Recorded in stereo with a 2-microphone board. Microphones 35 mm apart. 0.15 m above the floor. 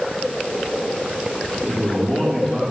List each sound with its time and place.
1.7 s a man speaking: 25° left (ahead or behind), 3.5 m